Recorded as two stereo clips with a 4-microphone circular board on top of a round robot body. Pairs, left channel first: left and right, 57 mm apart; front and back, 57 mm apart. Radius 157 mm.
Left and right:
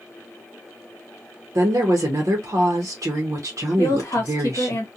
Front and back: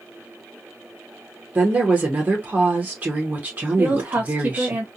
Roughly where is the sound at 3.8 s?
Behind left.